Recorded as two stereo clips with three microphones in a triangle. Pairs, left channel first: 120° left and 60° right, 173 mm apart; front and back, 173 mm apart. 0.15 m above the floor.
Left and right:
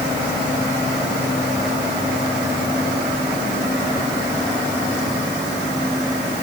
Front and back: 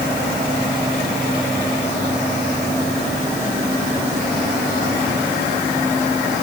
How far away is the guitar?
I don't hear a guitar.